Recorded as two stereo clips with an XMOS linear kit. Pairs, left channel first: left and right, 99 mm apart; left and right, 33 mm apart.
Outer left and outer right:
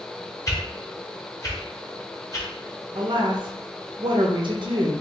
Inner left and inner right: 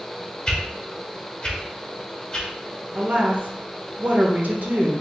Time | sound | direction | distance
0.5 | a whoosh | 35° left (ahead or behind) | 0.8 m
3.0 | a woman speaking | 55° right (ahead or behind) | 0.7 m